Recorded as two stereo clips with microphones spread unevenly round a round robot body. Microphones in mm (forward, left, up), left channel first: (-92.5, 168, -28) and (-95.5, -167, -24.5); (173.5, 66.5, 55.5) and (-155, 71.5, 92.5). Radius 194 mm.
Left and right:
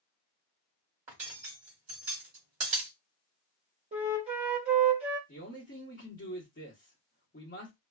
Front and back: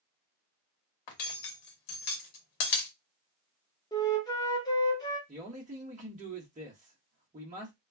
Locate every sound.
1.1 s cutlery clinking: 20° right, 0.9 m
3.9 s a flute: 45° right, 0.9 m
5.3 s a man speaking: 120° left, 1.2 m